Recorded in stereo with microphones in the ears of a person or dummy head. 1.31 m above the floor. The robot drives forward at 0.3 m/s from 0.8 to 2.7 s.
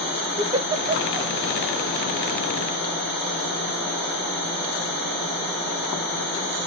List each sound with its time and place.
0.4 s a giggle: 20° right (ahead or behind), 0.8 m